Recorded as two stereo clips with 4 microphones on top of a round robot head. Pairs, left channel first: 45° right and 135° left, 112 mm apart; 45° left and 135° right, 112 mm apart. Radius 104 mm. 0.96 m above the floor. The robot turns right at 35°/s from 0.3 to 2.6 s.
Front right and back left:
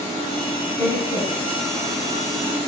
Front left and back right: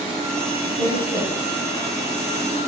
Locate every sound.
0.8 s a woman speaking: 110° right, 8.5 m; by 1.6 s 80° right, 8.5 m